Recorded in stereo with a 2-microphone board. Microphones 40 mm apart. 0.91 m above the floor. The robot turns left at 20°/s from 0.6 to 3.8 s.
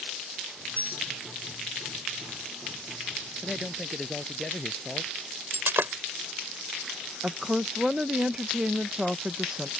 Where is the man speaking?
5° right (ahead or behind); by 5.2 s centre (ahead or behind).